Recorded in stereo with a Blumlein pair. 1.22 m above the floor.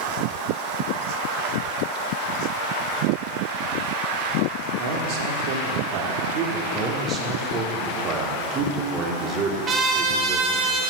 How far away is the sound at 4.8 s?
About 1.1 m.